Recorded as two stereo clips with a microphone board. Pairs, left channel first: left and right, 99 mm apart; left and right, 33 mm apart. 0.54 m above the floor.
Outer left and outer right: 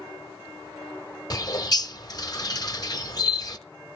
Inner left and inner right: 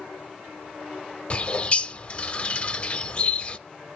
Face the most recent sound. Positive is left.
turn(degrees=40)  # may be behind; listen again after turning